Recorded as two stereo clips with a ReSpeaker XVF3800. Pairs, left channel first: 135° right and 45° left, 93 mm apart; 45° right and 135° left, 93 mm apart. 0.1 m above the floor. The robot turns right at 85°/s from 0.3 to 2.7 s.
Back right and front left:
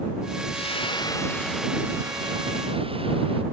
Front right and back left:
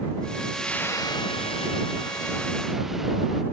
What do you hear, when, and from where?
0.5 s frying: 135° right; by 3.4 s 50° left